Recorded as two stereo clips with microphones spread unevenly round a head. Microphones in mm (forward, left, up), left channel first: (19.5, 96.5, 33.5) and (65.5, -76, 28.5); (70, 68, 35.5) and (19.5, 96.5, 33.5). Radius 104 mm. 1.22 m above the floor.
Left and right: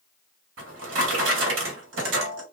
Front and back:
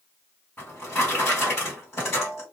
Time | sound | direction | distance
0.6 | a drawer | 105° right | 1.1 m